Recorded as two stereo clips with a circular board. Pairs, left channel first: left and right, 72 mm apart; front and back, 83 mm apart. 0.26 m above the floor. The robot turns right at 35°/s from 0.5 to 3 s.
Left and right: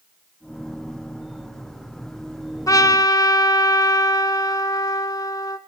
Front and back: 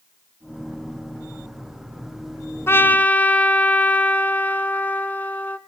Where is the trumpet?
60° left, 1.1 m; by 5.6 s 70° left, 1.1 m.